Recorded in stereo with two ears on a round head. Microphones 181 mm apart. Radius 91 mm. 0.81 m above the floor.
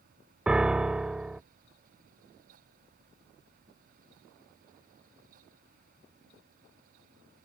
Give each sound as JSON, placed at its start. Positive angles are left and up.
{"t": 0.5, "sound": "a piano", "side_deg": -5}